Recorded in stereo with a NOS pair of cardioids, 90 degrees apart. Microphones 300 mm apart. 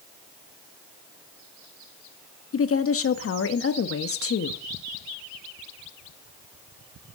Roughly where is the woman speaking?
Ahead left.